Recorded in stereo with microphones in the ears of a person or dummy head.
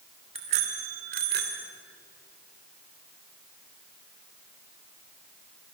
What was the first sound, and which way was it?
A bicycle bell, 40° right (ahead or behind).